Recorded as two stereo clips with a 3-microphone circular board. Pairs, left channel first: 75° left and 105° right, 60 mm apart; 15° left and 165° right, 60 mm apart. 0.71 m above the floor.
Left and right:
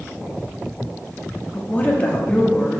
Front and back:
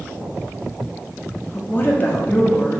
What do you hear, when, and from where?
1.5 s a woman speaking: 30° left, 0.6 m